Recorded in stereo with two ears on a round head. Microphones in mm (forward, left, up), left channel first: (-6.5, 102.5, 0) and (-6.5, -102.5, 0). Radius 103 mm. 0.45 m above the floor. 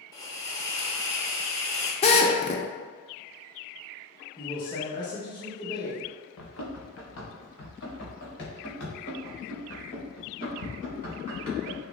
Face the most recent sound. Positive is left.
turn(degrees=40)  # may be behind; listen again after turning